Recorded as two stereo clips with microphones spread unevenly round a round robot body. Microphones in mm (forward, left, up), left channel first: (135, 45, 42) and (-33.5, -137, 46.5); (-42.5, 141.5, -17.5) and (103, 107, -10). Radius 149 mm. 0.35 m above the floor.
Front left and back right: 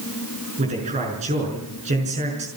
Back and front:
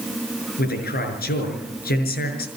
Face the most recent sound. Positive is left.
turn(degrees=160)